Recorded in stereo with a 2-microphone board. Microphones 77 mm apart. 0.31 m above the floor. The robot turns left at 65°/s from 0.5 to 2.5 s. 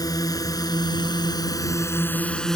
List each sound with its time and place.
0.0 s a drone: 60° left (ahead or behind); by 2.6 s 10° left (ahead or behind)